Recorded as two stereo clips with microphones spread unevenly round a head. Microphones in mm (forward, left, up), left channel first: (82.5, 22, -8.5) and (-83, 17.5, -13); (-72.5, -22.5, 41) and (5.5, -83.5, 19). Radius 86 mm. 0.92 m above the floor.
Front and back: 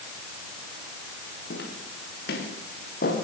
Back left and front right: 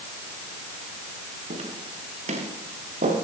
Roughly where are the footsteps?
Ahead right.